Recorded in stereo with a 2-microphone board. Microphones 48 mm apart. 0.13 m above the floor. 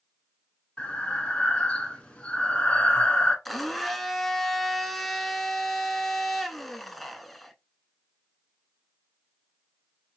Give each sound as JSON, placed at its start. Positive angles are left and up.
{"t": 0.8, "sound": "breathing", "side_deg": 25, "distance_m": 0.9}
{"t": 3.5, "sound": "a blender", "side_deg": 5, "distance_m": 0.5}